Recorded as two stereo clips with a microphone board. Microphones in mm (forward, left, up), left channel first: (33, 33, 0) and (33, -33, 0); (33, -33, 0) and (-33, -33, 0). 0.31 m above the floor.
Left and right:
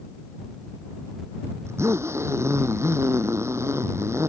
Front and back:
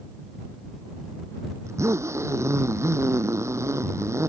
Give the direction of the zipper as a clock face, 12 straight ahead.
5 o'clock.